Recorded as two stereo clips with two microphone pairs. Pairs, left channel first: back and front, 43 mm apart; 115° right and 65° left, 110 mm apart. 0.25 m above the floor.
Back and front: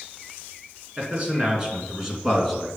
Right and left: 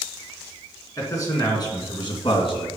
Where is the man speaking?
60° right, 3 m; by 2.7 s 90° right, 2.5 m.